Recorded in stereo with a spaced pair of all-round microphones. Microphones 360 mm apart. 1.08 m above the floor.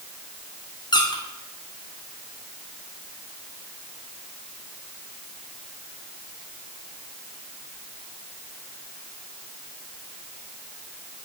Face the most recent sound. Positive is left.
turn(degrees=10)  # may be behind; listen again after turning